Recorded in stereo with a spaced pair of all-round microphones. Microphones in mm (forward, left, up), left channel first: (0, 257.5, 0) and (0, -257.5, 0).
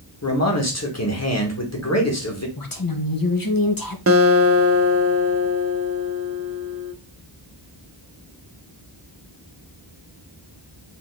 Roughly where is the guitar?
Right.